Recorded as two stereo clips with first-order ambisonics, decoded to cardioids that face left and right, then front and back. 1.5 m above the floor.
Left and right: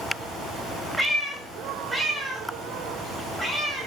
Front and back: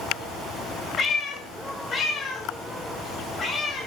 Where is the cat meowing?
10° right, 1.2 m.